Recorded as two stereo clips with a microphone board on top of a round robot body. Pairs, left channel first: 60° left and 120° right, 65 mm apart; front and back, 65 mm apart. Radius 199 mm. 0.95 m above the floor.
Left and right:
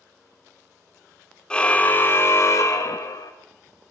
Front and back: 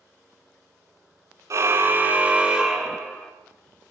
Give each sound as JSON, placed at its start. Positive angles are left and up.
{"t": 1.5, "sound": "a car horn", "azimuth_deg": 135, "distance_m": 2.0}